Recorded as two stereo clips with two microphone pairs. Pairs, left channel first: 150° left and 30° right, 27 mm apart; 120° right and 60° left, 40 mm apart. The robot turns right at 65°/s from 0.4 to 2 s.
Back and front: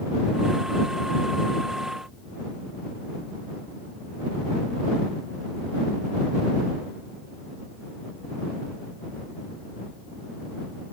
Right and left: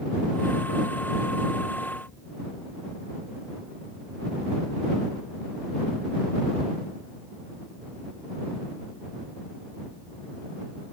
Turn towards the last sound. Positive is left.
No sound to turn to.